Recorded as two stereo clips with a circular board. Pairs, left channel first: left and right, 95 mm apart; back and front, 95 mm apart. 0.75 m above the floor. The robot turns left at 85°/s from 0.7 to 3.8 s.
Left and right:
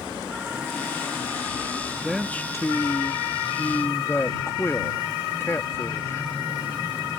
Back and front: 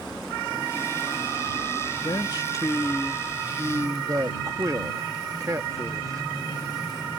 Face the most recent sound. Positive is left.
turn(degrees=35)